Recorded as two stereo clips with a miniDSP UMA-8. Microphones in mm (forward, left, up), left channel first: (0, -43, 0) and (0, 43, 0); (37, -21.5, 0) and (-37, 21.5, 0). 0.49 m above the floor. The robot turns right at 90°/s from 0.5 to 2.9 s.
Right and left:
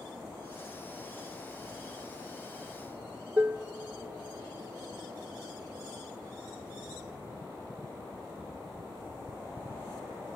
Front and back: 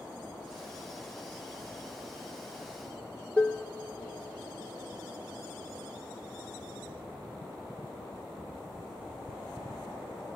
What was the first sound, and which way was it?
Dishes clattering, 35° left.